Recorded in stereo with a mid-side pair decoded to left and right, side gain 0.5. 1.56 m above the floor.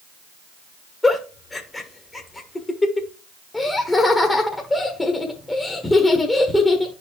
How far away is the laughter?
About 1.4 m.